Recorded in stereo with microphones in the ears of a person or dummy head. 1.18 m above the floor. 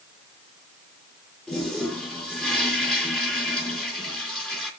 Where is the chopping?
No chopping in this recording.